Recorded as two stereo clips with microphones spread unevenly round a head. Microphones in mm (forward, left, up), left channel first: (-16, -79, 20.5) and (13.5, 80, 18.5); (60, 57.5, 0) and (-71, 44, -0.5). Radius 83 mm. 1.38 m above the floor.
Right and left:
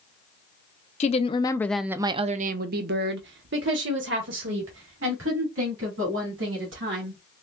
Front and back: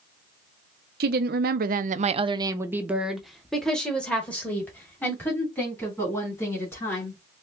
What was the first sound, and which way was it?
A woman speaking, 150° right.